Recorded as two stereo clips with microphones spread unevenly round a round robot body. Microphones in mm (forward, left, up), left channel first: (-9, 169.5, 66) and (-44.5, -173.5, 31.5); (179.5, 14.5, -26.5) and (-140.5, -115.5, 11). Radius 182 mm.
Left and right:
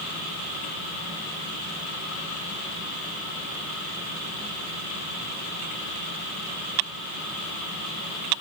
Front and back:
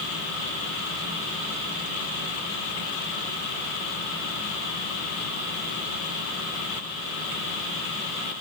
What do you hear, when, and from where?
Only background noise.